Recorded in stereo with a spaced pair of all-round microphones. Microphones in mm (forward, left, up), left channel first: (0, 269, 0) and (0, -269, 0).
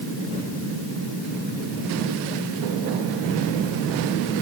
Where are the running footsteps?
I don't hear running footsteps.